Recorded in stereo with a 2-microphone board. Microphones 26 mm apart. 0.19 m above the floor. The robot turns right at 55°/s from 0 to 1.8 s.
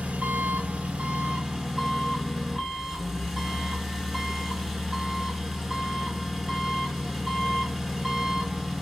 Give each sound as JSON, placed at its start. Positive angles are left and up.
{"t": 0.0, "sound": "an engine running", "azimuth_deg": -115, "distance_m": 0.8}